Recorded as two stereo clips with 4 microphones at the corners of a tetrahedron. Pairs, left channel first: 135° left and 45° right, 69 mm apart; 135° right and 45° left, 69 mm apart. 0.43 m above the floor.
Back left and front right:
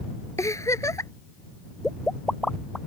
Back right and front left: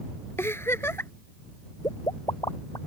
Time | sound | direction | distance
0.4 | a giggle | 175° left | ?
1.8 | a pop | 140° right | ?